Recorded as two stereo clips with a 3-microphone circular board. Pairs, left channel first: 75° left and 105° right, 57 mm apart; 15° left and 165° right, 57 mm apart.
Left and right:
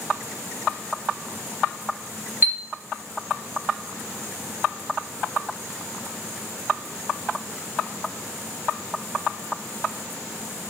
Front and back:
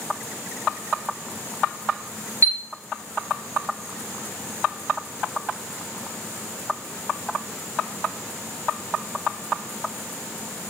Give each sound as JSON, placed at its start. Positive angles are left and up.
{"t": 2.4, "sound": "a chime", "azimuth_deg": -150, "distance_m": 2.5}